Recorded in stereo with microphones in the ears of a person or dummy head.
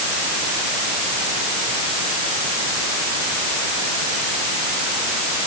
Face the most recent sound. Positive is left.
No sound to turn to.